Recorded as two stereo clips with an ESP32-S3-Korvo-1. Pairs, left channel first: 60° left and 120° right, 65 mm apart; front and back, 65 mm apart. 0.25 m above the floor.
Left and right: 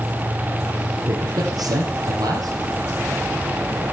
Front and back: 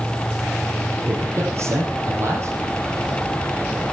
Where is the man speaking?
130° right, 6.5 m.